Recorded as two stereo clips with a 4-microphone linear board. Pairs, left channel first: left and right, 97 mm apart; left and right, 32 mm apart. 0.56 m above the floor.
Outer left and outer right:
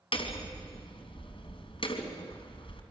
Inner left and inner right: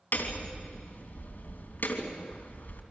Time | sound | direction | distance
0.1 | hammering | 70° left (ahead or behind) | 3 m